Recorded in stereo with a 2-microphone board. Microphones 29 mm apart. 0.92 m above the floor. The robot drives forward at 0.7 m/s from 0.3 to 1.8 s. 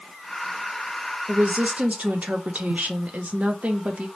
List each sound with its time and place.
1.3 s a woman speaking: 50° right (ahead or behind), 0.7 m; by 4.1 s 55° right (ahead or behind), 0.6 m